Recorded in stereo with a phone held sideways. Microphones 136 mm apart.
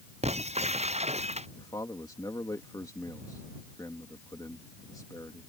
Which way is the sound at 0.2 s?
50° right (ahead or behind).